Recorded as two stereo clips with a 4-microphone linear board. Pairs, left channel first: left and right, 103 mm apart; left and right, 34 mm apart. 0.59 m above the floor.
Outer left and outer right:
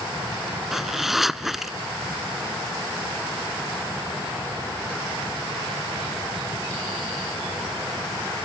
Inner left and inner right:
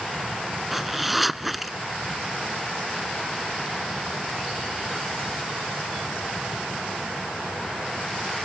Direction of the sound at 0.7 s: 5° right (ahead or behind).